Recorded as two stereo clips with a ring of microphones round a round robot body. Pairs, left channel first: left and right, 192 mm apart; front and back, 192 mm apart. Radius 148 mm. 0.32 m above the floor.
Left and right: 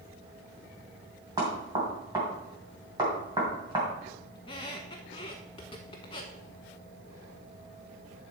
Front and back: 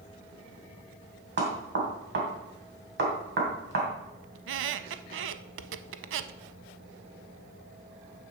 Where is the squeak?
160° left, 0.5 m.